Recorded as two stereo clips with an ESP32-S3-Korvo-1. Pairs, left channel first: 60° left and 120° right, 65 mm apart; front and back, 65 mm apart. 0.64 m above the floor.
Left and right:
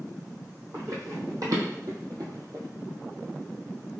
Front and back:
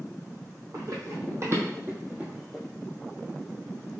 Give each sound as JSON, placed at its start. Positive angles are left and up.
{"t": 0.7, "sound": "running footsteps", "azimuth_deg": -155, "distance_m": 1.8}